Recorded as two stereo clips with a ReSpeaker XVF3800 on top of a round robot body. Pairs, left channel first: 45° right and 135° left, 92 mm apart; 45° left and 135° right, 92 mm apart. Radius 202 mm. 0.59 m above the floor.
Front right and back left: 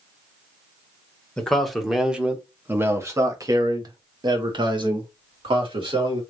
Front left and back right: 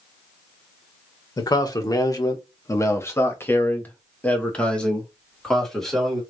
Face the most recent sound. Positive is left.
turn(degrees=135)